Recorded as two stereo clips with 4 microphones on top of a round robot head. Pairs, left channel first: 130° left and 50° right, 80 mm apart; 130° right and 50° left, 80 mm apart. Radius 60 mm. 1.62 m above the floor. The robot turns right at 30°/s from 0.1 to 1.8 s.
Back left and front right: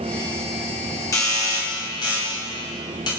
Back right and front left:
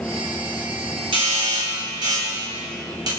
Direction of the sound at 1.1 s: 75° left.